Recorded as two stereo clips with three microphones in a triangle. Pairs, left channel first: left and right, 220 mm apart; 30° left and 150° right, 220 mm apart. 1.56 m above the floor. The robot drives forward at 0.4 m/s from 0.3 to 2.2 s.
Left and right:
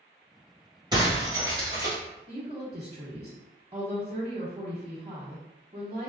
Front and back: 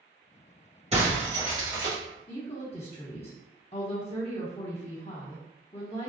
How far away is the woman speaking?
About 0.7 m.